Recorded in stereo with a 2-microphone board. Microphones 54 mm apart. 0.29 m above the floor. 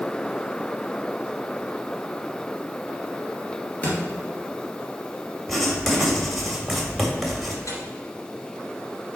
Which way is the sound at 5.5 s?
Centre (ahead or behind).